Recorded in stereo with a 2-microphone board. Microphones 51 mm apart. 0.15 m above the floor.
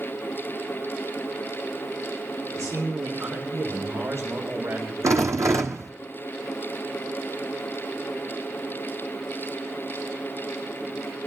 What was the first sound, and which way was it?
A man speaking, 80° right.